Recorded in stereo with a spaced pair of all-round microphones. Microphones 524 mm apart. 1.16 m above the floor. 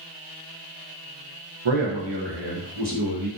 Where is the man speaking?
60° right (ahead or behind), 1.0 m; by 3.3 s 35° right (ahead or behind), 1.6 m.